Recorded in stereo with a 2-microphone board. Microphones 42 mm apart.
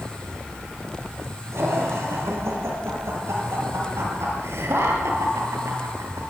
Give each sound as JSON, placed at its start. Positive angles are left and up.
{"t": 1.5, "sound": "laughter", "side_deg": -70, "distance_m": 9.0}